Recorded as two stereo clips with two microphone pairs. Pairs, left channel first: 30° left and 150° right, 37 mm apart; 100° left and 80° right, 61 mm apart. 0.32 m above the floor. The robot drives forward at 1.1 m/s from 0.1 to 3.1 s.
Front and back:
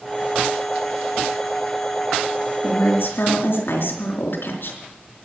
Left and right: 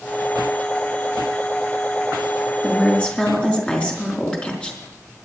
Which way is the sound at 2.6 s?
30° left.